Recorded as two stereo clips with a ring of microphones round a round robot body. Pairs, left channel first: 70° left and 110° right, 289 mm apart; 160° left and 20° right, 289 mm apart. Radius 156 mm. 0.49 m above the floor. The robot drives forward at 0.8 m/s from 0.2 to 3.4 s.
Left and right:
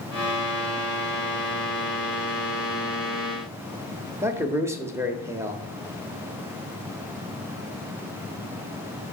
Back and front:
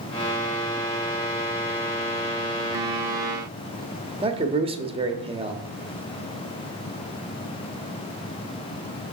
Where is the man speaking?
50° right, 0.8 m.